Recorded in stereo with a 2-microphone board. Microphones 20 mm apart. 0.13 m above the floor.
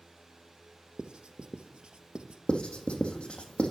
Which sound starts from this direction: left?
Writing, at 2.5 s.